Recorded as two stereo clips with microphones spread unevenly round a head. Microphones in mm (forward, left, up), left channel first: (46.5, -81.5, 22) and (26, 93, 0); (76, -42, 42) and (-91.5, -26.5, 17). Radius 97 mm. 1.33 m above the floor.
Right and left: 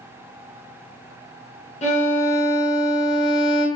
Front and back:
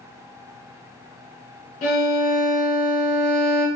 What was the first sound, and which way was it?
A violin, 35° right.